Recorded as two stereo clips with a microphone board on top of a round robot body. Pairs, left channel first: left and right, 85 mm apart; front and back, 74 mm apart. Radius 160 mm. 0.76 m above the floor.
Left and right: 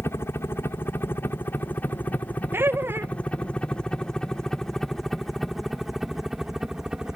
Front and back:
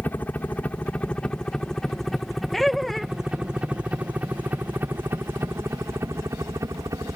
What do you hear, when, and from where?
0.0 s a helicopter: 50° left; by 7.2 s 170° right
2.5 s laughter: 85° right